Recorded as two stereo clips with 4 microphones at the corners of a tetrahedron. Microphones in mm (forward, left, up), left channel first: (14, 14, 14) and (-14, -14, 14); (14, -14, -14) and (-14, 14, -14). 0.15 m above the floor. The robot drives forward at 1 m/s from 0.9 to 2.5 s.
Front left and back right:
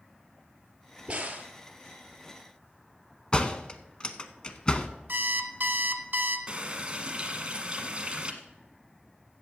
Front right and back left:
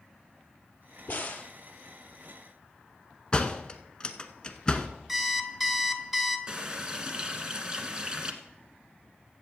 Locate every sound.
1.1 s a crack: 75° right, 1.4 m; by 1.5 s 95° right, 1.4 m
3.3 s a door slam: straight ahead, 0.8 m
5.1 s an alarm clock: 145° right, 0.9 m
6.5 s a running tap: 175° right, 1.1 m